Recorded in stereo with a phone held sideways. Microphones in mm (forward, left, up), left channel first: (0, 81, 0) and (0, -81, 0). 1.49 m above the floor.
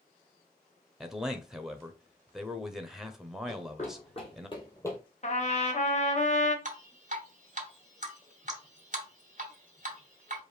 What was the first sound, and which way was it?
A man speaking, 5° right (ahead or behind).